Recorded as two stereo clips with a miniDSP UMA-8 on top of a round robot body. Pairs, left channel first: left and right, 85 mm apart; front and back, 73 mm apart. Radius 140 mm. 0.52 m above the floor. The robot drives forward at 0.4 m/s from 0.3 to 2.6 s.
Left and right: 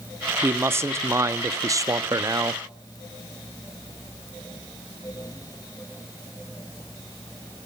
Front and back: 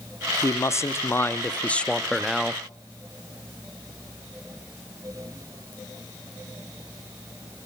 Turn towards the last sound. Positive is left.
turn(degrees=-105)